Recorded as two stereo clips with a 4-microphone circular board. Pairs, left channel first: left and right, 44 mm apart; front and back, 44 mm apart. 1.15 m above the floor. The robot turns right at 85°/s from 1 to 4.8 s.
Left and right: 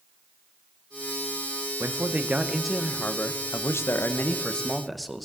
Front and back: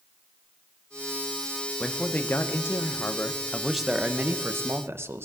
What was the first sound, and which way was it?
A man speaking, 75° right.